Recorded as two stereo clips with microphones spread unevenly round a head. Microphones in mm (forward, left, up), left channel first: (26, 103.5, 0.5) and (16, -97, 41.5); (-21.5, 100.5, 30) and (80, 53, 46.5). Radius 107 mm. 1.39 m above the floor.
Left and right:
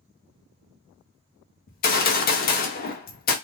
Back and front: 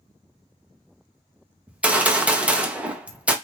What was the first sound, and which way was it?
A gunshot, 60° left.